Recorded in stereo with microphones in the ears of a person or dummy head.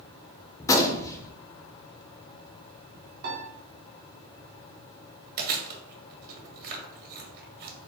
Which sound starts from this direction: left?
A gunshot, at 0.6 s.